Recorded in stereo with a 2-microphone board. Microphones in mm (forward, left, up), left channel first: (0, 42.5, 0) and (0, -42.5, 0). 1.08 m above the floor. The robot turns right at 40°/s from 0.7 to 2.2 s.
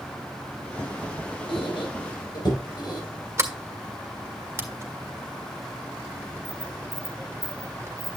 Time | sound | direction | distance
1.5 | a squeak | 80° left | 4 m
3.4 | a sliding door | 30° right (ahead or behind) | 1.6 m